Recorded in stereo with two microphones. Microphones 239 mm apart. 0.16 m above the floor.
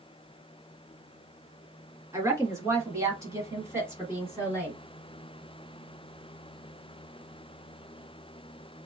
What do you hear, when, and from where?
2.1 s a woman speaking: 10° right (ahead or behind), 1.6 m; by 4.8 s 5° right (ahead or behind), 1.3 m